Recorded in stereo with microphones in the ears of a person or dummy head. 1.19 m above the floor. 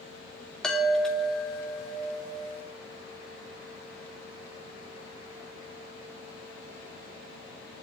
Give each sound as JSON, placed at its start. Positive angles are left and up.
{"t": 0.6, "sound": "a chime", "side_deg": 5, "distance_m": 2.5}